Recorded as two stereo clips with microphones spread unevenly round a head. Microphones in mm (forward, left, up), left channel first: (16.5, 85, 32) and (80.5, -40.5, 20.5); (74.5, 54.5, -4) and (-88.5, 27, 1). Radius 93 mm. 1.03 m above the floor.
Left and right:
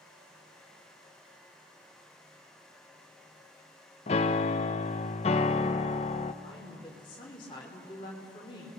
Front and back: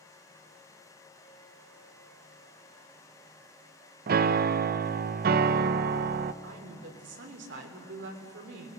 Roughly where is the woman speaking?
Behind.